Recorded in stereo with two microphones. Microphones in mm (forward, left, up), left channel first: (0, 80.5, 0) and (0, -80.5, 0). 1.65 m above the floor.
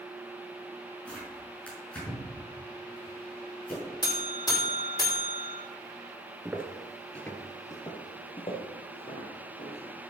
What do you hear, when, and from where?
1.1 s tearing paper: 5° left (ahead or behind), 6 m
4.0 s a buzzer: 25° left (ahead or behind), 4 m
6.5 s footsteps: 15° right (ahead or behind), 1.7 m; by 10.1 s 40° left (ahead or behind), 6 m